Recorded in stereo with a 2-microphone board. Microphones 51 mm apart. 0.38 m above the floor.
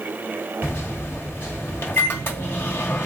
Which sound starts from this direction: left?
A microwave, at 0.6 s.